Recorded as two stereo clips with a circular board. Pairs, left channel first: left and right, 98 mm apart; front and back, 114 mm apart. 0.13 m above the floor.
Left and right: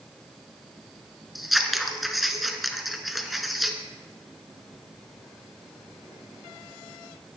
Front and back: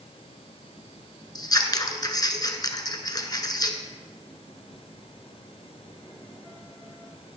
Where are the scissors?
Straight ahead, 1.0 m.